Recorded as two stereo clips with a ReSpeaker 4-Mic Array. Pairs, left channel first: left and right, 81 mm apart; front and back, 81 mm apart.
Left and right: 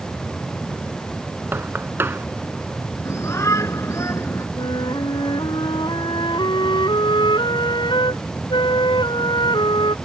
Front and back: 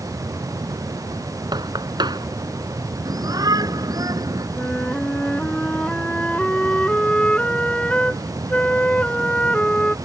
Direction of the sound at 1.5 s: 155° right.